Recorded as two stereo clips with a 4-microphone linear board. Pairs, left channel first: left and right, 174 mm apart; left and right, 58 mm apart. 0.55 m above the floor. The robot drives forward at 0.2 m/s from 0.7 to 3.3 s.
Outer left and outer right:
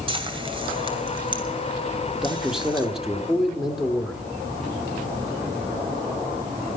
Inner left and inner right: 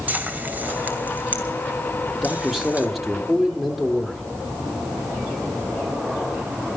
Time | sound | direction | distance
0.1 | frying | 30° right (ahead or behind) | 2 m
2.1 | a man speaking | 5° right (ahead or behind) | 1.3 m